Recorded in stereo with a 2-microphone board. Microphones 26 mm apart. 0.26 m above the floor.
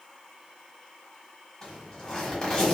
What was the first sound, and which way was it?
A zipper, 20° left (ahead or behind).